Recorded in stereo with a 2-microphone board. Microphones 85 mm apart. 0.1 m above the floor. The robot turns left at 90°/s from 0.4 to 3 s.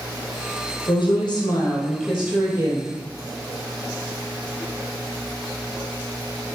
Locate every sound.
0.9 s a woman speaking: 105° left, 2.5 m; by 2.9 s 80° right, 2.5 m